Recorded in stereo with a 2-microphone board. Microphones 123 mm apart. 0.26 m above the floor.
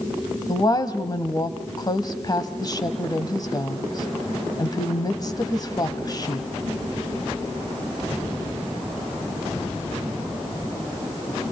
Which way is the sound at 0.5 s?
35° left (ahead or behind).